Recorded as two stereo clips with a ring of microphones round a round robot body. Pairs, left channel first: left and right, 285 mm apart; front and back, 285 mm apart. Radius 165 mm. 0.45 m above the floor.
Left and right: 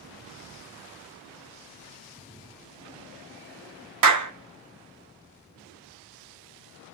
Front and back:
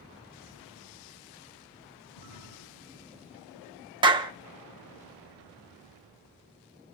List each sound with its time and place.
2.1 s a splash: 20° right, 7.5 m
4.0 s a clap: 105° right, 1.3 m